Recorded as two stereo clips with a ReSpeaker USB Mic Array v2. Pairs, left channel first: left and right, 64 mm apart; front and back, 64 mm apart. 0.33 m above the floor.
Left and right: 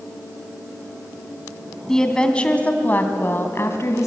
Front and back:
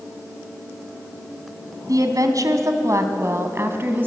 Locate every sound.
1.9 s a woman speaking: 170° left, 2 m; by 4.1 s 125° left, 2 m